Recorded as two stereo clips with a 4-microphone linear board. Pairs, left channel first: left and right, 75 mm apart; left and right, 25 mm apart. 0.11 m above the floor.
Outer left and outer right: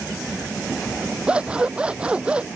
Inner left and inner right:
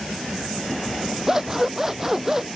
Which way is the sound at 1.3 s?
15° right (ahead or behind).